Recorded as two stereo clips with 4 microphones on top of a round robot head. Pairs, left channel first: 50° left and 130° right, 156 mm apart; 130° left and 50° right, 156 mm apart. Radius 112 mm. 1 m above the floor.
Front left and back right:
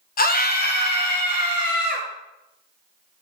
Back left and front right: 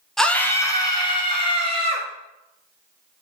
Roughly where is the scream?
Ahead left.